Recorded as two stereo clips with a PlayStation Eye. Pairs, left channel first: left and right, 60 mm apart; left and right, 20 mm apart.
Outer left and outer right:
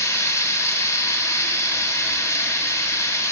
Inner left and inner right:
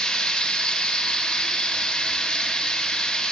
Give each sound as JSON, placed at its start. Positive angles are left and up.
{"t": 0.0, "sound": "running water", "side_deg": 45, "distance_m": 4.0}